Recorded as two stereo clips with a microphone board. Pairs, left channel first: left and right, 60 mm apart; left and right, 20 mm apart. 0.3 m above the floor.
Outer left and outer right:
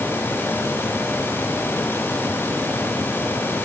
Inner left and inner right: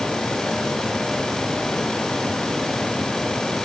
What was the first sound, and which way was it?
Only background noise.